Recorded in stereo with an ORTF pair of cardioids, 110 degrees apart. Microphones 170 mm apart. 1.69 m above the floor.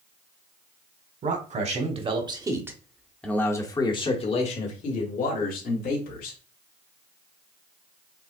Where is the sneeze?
I don't hear a sneeze.